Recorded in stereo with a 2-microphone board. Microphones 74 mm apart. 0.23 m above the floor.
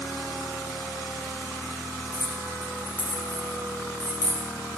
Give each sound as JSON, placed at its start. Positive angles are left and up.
{"t": 2.1, "sound": "keys jangling", "side_deg": 40, "distance_m": 4.0}